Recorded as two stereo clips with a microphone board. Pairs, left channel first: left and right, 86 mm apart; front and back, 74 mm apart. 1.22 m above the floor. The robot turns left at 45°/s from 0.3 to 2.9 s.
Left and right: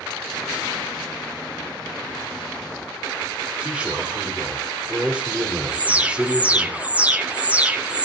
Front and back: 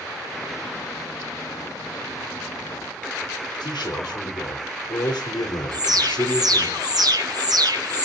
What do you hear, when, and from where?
3.6 s a man speaking: 10° right, 3.5 m
5.7 s an alarm: 160° right, 1.4 m